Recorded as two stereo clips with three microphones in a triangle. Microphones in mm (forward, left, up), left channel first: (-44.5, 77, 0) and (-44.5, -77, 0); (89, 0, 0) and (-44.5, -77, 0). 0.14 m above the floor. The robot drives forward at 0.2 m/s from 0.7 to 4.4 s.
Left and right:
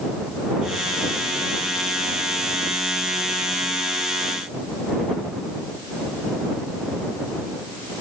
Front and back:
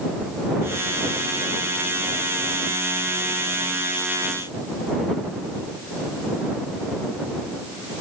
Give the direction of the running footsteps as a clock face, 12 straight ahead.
I don't hear running footsteps.